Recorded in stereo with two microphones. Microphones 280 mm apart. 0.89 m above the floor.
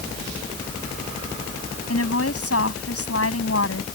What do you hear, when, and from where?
1.9 s a woman speaking: 55° left (ahead or behind)